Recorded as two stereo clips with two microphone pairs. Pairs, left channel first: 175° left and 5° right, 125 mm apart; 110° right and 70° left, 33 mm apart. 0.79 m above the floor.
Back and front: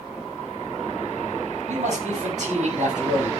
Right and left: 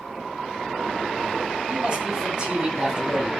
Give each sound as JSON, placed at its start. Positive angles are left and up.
{"t": 1.7, "sound": "a man speaking", "azimuth_deg": 20, "distance_m": 6.5}